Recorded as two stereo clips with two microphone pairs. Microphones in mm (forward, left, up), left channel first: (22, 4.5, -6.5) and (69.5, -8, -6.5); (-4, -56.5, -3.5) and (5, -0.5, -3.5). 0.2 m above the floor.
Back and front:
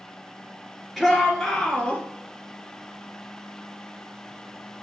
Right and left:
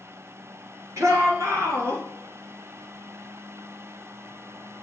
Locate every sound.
1.0 s a shout: 70° left, 2.5 m; by 2.0 s 100° left, 2.5 m